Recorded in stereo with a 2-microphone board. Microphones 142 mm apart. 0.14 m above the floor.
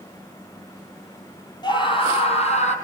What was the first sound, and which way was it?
A scream, 30° left (ahead or behind).